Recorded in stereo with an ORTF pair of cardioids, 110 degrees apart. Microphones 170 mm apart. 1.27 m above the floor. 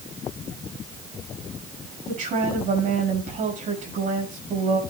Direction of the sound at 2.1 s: 55° right.